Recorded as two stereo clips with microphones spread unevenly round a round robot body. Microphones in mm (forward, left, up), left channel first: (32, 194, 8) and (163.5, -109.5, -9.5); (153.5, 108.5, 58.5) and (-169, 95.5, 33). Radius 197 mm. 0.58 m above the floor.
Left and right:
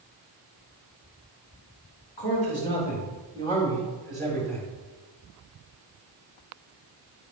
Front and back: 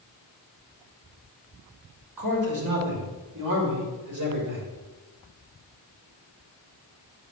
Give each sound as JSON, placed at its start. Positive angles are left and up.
{"t": 2.2, "sound": "a man speaking", "azimuth_deg": 175, "distance_m": 3.0}